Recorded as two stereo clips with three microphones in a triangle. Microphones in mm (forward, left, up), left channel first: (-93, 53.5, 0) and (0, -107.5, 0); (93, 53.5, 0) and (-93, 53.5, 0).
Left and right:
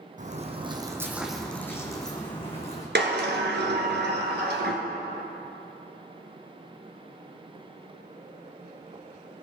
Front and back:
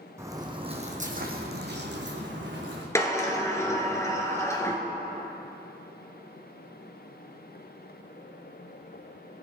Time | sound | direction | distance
0.2 | footsteps | 105° right | 2.0 m
3.0 | a sliding door | 75° right | 1.7 m